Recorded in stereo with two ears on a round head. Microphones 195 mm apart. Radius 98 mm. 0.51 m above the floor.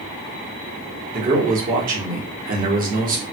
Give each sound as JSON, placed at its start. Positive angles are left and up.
{"t": 1.1, "sound": "a man speaking", "side_deg": -40, "distance_m": 1.1}